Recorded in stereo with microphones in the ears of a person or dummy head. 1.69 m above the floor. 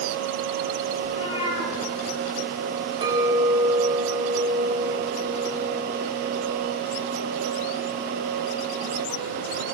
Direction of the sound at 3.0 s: 30° right (ahead or behind).